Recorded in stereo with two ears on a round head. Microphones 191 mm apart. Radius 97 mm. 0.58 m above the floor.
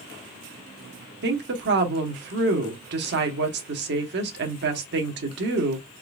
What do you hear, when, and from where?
1.2 s a woman speaking: 55° right (ahead or behind), 1.1 m